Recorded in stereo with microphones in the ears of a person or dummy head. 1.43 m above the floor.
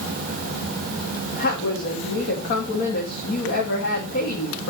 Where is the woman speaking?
60° left (ahead or behind), 2.5 m.